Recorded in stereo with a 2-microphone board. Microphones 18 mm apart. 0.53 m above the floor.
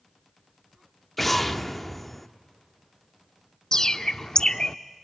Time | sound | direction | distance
1.2 | an explosion | 5° left (ahead or behind) | 0.7 m
3.7 | a bird | 35° left (ahead or behind) | 0.5 m